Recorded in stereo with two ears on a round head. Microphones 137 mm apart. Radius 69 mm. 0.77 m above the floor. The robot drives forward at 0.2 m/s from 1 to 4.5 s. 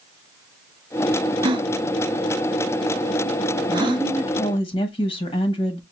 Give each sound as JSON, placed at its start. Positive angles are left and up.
{"t": 1.4, "sound": "a gasp", "side_deg": -30, "distance_m": 0.6}
{"t": 3.7, "sound": "a woman speaking", "side_deg": 35, "distance_m": 1.2}